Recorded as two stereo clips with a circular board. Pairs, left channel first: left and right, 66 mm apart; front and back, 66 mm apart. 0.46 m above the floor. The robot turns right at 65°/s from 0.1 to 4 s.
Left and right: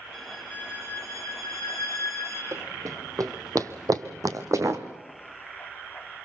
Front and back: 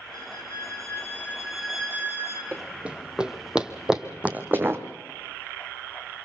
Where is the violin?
5° right, 4.5 m; by 2.4 s 145° left, 4.5 m.